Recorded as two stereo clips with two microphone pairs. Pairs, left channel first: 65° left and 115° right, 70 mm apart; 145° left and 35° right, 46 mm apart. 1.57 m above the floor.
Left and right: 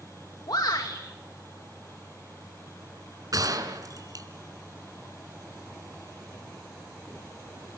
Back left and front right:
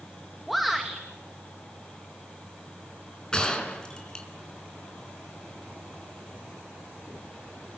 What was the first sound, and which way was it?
A shout, 55° left.